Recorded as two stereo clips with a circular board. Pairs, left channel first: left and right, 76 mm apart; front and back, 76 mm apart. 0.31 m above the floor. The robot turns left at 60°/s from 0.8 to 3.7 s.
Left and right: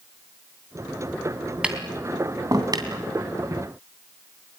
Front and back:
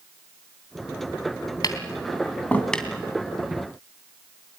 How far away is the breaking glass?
No breaking glass in this recording.